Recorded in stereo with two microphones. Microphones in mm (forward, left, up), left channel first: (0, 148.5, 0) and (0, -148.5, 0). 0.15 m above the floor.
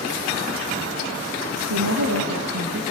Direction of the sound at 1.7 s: 70° right (ahead or behind).